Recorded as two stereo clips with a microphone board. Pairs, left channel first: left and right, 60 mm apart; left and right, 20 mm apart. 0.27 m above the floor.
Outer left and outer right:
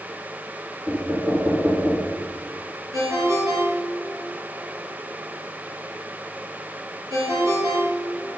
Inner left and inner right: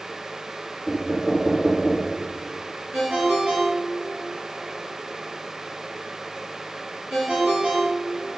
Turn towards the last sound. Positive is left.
turn(degrees=-75)  # may be behind; listen again after turning